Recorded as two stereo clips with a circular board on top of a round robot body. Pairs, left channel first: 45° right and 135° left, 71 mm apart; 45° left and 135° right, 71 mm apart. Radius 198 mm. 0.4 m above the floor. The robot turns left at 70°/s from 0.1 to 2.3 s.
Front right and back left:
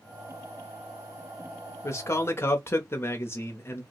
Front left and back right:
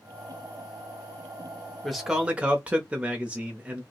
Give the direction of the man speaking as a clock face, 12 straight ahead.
1 o'clock.